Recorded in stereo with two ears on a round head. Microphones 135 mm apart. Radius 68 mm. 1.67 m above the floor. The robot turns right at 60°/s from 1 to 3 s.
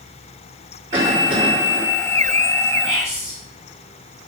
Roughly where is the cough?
Behind right.